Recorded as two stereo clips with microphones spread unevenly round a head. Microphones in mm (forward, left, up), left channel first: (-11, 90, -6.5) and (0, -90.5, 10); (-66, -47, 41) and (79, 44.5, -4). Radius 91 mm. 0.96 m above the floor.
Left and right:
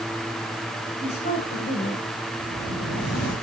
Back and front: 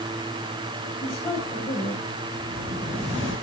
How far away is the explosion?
About 6.5 m.